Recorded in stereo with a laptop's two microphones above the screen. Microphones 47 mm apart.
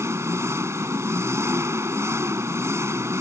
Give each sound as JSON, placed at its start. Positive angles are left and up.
{"t": 0.0, "sound": "an engine running", "side_deg": -80}